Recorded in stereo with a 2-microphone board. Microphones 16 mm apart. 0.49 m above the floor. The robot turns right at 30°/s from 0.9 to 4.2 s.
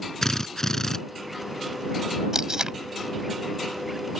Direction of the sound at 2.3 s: 30° right (ahead or behind).